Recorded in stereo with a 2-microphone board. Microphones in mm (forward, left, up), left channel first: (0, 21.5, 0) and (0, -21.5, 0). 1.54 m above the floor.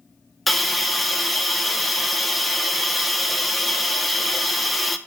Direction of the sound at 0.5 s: Centre (ahead or behind).